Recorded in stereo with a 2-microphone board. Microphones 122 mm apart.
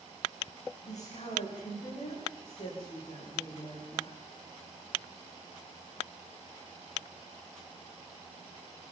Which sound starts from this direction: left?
A woman speaking, at 0.8 s.